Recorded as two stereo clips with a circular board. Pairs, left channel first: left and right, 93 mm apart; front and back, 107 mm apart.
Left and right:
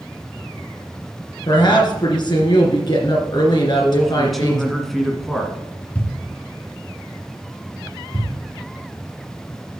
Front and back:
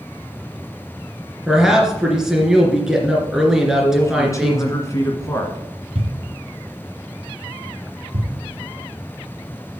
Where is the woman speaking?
95° left, 2.5 m.